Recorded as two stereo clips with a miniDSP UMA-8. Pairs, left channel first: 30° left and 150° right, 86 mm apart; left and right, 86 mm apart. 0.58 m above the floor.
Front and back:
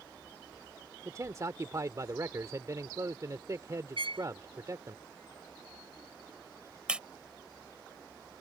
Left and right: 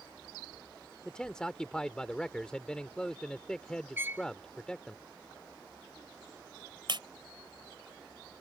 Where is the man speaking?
170° left.